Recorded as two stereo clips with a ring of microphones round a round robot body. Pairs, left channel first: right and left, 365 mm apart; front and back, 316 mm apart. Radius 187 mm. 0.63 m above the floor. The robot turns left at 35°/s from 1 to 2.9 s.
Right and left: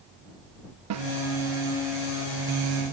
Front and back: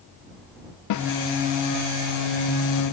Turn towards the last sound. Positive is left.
turn(degrees=-30)